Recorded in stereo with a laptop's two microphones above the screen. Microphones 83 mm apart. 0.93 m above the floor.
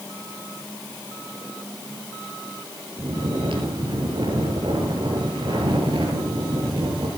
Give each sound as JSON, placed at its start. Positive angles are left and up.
{"t": 3.0, "sound": "snoring", "side_deg": -80, "distance_m": 5.5}